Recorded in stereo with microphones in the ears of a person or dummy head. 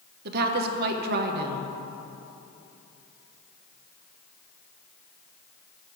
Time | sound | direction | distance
0.2 | a woman speaking | 60° right (ahead or behind) | 0.9 m